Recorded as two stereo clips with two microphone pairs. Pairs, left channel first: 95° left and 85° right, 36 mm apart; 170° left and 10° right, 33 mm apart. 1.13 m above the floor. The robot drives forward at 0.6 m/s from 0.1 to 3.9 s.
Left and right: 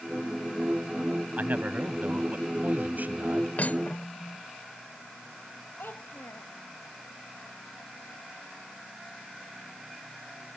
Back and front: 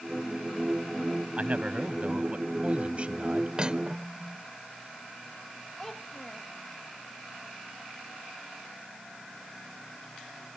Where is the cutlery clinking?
55° left; by 4.5 s 60° left.